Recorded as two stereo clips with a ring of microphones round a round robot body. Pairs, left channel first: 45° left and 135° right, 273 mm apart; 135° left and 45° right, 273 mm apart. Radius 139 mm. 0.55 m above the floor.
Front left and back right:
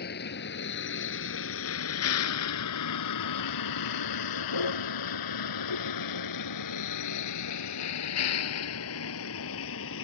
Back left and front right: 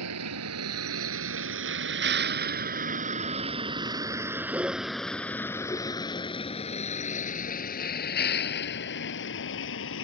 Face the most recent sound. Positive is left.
turn(degrees=90)